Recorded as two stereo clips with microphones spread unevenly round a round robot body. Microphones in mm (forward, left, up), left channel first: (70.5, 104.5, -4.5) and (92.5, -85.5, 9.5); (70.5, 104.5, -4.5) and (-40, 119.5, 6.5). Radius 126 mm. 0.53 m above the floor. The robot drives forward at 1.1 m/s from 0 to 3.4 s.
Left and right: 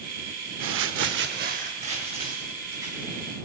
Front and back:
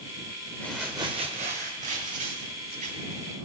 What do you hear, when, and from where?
0.6 s crumpling: 85° right, 0.9 m; by 3.2 s 165° right, 3 m